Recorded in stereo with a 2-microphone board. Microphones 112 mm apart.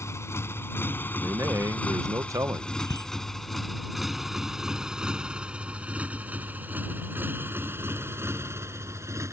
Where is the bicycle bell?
35° left (ahead or behind).